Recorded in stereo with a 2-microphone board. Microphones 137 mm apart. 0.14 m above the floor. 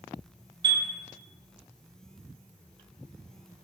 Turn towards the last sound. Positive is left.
turn(degrees=-35)  # may be behind; listen again after turning